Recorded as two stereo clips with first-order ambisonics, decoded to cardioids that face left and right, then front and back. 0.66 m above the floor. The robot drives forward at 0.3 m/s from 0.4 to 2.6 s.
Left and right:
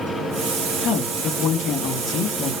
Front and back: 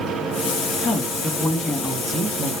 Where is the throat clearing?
I don't hear throat clearing.